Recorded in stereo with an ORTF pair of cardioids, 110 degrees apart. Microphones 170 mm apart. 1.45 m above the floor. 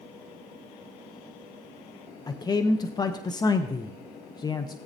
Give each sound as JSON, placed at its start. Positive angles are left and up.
{"t": 2.3, "sound": "a man speaking", "azimuth_deg": 25, "distance_m": 0.7}